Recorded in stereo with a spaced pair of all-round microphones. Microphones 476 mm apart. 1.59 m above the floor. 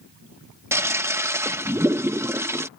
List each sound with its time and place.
0.7 s a toilet flushing: 5° right (ahead or behind)